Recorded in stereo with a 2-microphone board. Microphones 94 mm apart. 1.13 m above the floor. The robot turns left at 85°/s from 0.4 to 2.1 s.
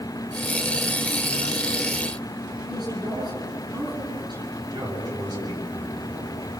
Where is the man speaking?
45° right (ahead or behind), 7 m.